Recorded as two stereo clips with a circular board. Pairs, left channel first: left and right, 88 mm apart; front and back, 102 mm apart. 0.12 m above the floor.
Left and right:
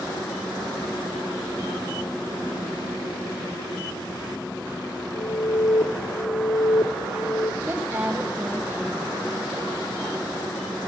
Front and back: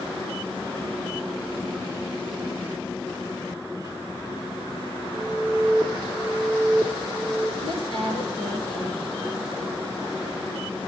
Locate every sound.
5.1 s an alarm: 80° left, 2.5 m
7.6 s a woman speaking: 25° right, 5 m